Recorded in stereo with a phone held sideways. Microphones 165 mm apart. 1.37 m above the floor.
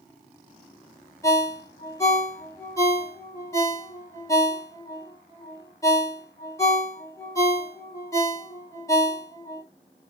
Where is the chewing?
I don't hear chewing.